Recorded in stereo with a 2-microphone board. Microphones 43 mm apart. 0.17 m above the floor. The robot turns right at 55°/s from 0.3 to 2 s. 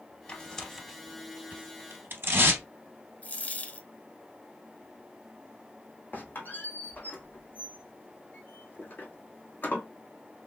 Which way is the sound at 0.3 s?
20° left (ahead or behind).